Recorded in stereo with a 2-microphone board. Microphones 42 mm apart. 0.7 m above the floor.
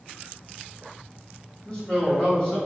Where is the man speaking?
35° left (ahead or behind), 1.6 m.